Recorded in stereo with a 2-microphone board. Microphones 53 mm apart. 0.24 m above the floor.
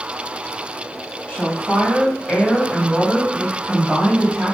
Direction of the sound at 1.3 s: 30° left (ahead or behind).